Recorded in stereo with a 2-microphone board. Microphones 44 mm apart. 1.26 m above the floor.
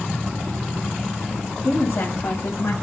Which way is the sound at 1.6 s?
75° left (ahead or behind).